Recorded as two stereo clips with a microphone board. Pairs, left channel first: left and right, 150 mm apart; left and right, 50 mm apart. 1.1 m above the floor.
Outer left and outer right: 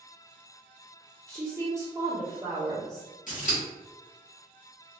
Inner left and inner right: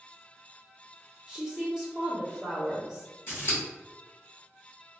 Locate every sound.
1.3 s a woman speaking: 20° right (ahead or behind), 0.8 m
3.3 s scissors: 60° left (ahead or behind), 1.3 m